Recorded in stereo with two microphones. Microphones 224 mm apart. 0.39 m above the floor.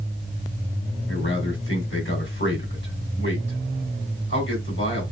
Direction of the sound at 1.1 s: 60° left (ahead or behind).